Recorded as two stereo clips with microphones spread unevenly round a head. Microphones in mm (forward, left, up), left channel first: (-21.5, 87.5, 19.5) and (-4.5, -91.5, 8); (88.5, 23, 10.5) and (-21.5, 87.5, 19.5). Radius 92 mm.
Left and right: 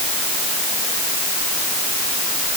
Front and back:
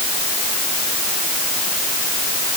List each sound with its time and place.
Only background noise.